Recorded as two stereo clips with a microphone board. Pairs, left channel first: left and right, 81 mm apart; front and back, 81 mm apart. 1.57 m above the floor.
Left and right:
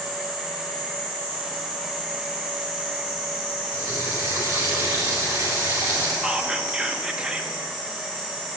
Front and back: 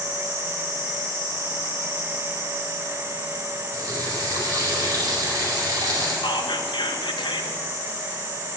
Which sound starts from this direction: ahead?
Whispering, at 6.2 s.